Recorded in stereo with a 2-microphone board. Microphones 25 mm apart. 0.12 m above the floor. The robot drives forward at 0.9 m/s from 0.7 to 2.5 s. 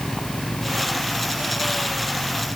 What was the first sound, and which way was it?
Only background noise.